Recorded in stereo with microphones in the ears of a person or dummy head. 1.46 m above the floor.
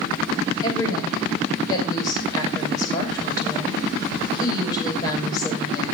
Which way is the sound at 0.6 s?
30° left (ahead or behind).